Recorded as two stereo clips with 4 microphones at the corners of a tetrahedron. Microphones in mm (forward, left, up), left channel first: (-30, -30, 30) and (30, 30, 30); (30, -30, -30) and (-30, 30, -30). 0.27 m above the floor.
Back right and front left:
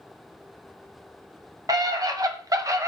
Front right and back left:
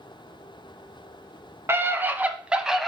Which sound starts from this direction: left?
A scream, at 1.7 s.